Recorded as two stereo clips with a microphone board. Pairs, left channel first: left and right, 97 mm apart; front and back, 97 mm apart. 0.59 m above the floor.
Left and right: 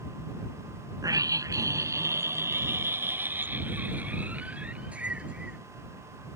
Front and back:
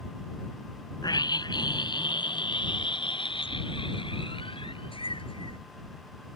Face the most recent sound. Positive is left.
turn(degrees=-10)